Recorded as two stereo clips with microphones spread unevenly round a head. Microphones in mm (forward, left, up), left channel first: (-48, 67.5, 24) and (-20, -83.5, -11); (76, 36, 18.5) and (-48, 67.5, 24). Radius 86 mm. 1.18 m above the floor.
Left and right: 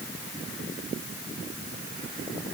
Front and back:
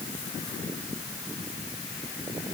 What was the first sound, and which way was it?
Only background noise.